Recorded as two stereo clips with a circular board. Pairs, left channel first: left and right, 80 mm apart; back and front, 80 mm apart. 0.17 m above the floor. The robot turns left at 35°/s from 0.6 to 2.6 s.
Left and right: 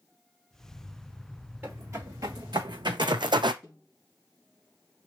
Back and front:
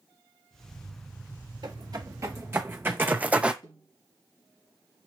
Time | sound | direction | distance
1.6 | footsteps | 25° right | 1.7 m
3.6 | a snare drum | 175° left | 4 m